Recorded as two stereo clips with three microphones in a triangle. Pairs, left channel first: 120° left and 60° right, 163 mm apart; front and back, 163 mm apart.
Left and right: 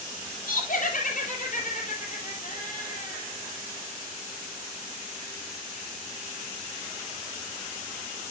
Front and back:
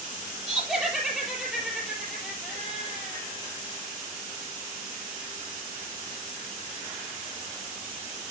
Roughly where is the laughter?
Left.